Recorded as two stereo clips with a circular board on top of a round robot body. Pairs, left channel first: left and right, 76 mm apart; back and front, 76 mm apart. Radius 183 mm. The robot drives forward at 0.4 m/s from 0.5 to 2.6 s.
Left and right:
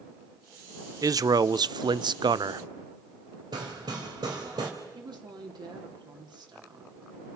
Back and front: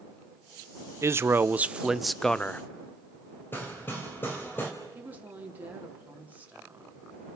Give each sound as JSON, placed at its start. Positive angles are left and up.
{"t": 1.0, "sound": "a man speaking", "azimuth_deg": -50, "distance_m": 0.8}
{"t": 3.5, "sound": "hammering", "azimuth_deg": -115, "distance_m": 3.5}
{"t": 5.0, "sound": "a woman speaking", "azimuth_deg": -70, "distance_m": 3.0}